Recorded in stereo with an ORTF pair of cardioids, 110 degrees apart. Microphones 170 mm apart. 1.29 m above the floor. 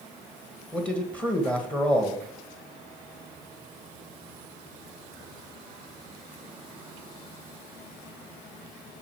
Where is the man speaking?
5° left, 1.5 m.